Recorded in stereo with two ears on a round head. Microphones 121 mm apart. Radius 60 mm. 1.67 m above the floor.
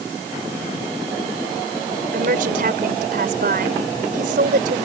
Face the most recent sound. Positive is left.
turn(degrees=-70)  # may be behind; listen again after turning